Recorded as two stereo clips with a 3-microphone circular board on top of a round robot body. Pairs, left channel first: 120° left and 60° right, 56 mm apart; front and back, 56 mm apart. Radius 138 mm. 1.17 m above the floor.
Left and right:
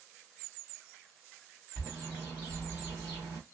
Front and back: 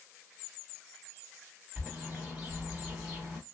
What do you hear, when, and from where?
1.8 s a bird: 95° right, 1.5 m